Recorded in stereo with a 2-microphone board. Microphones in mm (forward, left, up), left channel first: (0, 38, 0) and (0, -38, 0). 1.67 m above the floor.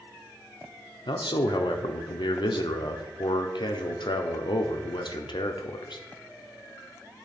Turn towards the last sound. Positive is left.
turn(degrees=80)